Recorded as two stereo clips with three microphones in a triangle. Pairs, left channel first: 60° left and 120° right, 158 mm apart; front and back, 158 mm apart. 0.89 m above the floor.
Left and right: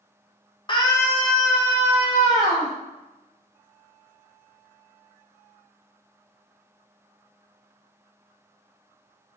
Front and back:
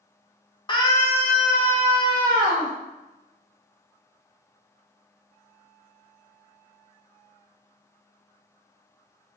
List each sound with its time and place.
0.7 s a scream: 30° left, 0.7 m; by 2.7 s 145° right, 1.0 m